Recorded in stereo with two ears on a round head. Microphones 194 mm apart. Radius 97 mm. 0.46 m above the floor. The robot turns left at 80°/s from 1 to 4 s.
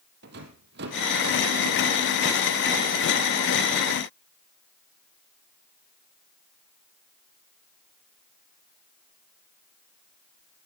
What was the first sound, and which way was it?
A rattle, 50° right (ahead or behind).